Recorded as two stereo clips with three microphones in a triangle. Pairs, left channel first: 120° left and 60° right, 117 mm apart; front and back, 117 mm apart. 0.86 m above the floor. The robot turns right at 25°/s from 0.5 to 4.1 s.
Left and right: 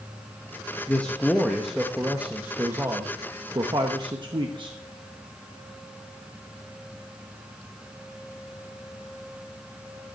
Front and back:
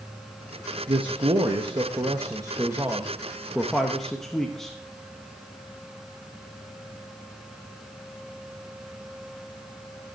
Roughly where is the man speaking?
Behind.